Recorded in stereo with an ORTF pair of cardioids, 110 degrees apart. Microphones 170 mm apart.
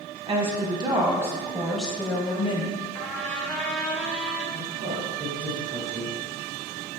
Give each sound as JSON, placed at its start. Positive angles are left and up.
{"t": 0.3, "sound": "a woman speaking", "azimuth_deg": -30, "distance_m": 1.3}
{"t": 3.0, "sound": "a trumpet", "azimuth_deg": 5, "distance_m": 0.7}
{"t": 4.5, "sound": "a woman speaking", "azimuth_deg": -60, "distance_m": 1.9}